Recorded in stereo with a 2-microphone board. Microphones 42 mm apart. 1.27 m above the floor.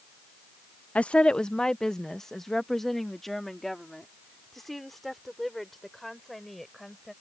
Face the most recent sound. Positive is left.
turn(degrees=0)  # may be behind; listen again after turning